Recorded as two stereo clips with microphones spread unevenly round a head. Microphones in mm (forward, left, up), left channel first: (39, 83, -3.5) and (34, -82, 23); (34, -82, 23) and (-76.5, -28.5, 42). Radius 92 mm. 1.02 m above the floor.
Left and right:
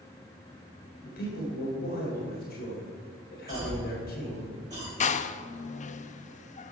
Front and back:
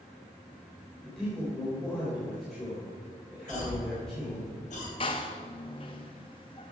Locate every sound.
1.0 s a man speaking: 60° left, 3.5 m
3.5 s a cough: 25° right, 4.5 m
5.0 s a door slam: 40° left, 0.5 m